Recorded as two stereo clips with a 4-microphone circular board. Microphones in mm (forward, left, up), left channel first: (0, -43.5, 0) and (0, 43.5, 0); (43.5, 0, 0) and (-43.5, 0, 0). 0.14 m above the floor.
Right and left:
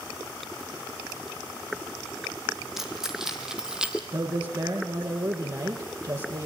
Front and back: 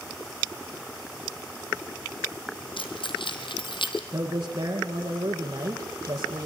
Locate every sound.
2.8 s keys jangling: 5° left, 3.5 m; by 4.0 s 10° left, 2.5 m
4.1 s a man speaking: 125° left, 4.5 m